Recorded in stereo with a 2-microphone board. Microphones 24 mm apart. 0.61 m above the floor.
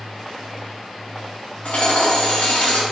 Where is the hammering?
70° left (ahead or behind), 3.5 m.